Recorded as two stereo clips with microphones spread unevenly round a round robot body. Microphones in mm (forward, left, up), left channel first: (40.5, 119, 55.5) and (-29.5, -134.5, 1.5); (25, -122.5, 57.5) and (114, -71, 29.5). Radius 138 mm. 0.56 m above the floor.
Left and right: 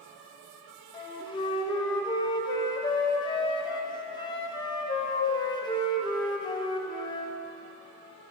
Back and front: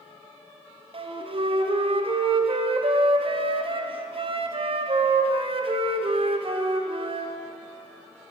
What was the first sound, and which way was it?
A flute, 5° right.